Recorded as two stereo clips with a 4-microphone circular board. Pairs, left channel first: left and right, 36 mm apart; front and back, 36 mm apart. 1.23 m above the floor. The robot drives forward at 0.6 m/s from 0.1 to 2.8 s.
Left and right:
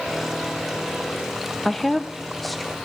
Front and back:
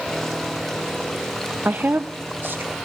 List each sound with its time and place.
1.6 s a woman speaking: 175° left, 0.8 m